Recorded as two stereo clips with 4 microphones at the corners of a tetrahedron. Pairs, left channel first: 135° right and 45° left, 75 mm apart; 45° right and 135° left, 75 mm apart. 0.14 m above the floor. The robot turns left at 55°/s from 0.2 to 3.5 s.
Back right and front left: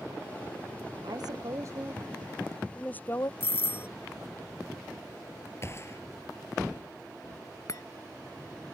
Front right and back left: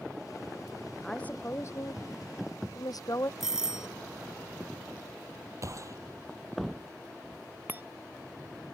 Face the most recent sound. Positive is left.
turn(degrees=-170)